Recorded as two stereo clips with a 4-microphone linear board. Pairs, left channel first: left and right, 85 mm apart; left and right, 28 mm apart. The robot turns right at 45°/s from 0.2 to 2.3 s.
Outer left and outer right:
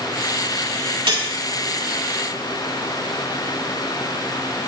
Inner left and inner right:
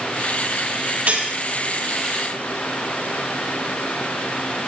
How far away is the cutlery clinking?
About 3 m.